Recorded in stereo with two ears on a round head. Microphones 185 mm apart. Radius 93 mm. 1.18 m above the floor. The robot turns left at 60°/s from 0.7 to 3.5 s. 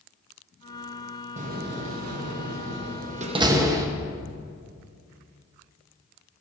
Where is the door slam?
35° right (ahead or behind), 0.9 m; by 3.9 s 15° right (ahead or behind), 0.9 m.